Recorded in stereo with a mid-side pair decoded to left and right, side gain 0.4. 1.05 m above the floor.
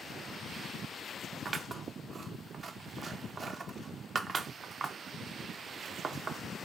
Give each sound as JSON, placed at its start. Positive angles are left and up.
{"t": 1.4, "sound": "scissors", "azimuth_deg": -45, "distance_m": 0.6}